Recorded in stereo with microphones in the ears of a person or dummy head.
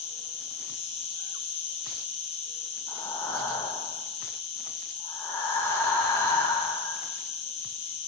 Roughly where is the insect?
Left.